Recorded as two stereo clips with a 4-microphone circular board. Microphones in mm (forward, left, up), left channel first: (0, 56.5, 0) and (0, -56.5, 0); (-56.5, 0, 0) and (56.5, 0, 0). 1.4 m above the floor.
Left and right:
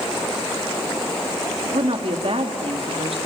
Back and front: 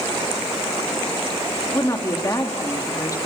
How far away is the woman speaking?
About 3 m.